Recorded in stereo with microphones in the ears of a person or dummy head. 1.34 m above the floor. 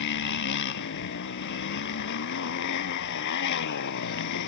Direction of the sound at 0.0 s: 65° left (ahead or behind).